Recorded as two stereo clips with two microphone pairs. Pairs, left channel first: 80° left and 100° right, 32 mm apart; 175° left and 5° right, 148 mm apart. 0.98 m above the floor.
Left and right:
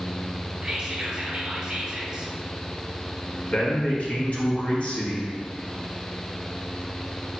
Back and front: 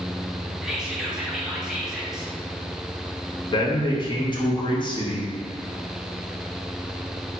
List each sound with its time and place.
0.6 s whispering: 85° right, 0.7 m
3.5 s a man speaking: 120° left, 1.0 m